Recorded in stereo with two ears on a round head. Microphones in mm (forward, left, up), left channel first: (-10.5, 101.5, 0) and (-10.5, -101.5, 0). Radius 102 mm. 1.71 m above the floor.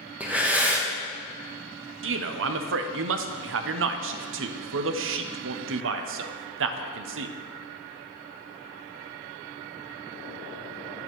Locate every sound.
0.2 s breathing: 5° right (ahead or behind), 0.9 m
2.0 s a man speaking: 60° right (ahead or behind), 0.6 m